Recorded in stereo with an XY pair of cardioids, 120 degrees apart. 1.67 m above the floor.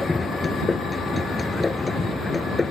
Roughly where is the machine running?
Ahead.